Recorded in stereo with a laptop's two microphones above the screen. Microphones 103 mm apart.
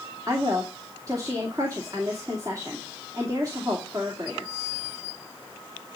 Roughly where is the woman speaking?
Right.